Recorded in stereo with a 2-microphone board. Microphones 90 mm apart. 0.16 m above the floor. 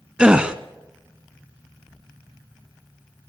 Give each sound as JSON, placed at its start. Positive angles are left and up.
{"t": 0.2, "sound": "a gasp", "side_deg": -10, "distance_m": 0.9}